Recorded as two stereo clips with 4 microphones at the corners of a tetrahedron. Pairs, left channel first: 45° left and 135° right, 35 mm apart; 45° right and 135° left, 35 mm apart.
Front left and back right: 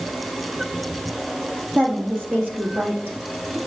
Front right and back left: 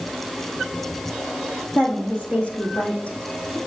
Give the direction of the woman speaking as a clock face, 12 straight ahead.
3 o'clock.